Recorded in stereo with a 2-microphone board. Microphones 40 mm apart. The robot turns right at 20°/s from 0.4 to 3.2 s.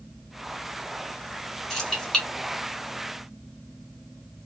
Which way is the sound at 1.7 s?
10° left (ahead or behind).